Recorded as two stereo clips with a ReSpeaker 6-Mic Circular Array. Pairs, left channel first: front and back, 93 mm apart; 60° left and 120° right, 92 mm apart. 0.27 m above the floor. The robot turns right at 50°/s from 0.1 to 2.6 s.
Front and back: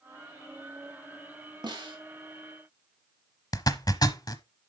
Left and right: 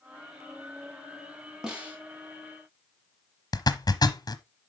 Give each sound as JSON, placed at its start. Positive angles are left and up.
{"t": 1.6, "sound": "a snare drum", "azimuth_deg": 155, "distance_m": 3.0}
{"t": 3.5, "sound": "a zipper", "azimuth_deg": 25, "distance_m": 0.8}